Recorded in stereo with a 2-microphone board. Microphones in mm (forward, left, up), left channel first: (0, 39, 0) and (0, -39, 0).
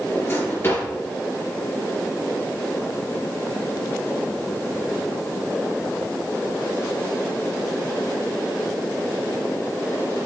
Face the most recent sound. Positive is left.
turn(degrees=30)  # may be behind; listen again after turning